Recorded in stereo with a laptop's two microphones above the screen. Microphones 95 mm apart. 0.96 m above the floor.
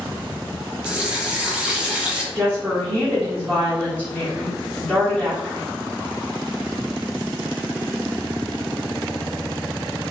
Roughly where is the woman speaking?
Centre.